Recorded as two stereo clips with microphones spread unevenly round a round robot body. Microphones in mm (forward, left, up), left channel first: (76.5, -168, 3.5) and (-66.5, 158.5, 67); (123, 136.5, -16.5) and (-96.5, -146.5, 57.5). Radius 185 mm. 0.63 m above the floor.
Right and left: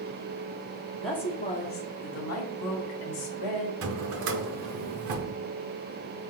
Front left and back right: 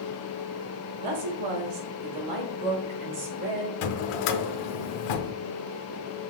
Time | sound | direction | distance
1.0 | a woman speaking | 150° right | 1.1 m
3.8 | a drawer | 65° left | 0.6 m